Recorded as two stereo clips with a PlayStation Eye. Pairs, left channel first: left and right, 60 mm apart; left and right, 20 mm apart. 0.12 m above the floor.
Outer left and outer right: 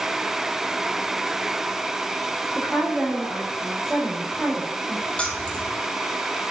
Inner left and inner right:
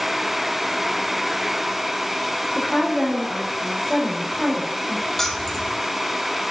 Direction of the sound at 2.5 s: 5° right (ahead or behind).